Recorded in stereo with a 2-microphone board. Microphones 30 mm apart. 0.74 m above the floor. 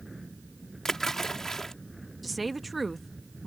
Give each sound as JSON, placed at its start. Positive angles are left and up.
{"t": 0.8, "sound": "a splash", "side_deg": 15}
{"t": 2.2, "sound": "a woman speaking", "side_deg": 0}